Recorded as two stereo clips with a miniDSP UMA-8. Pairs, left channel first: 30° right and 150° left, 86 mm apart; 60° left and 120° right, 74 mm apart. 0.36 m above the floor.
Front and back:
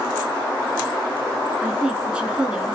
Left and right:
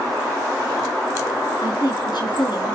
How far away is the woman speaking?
About 4.5 m.